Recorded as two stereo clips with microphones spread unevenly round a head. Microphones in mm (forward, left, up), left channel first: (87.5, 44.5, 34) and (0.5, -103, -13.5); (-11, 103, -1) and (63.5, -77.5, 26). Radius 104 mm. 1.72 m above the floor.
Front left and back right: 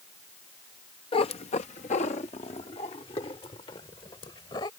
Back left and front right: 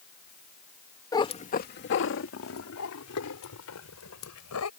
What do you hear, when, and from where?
1.1 s a cat meowing: 40° left; by 4.7 s 125° left